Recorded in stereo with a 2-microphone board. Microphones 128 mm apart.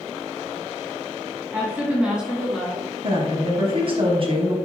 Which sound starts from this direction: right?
A woman speaking, at 3.0 s.